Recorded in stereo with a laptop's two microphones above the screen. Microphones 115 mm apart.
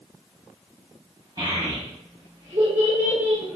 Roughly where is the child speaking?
Right.